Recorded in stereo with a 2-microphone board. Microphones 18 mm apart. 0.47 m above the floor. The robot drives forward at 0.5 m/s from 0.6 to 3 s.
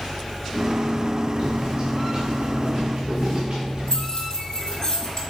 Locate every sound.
1.4 s footsteps: 60° right (ahead or behind), 2 m; by 4.1 s 75° right (ahead or behind), 3.5 m
3.9 s keys jangling: 35° left (ahead or behind), 2.5 m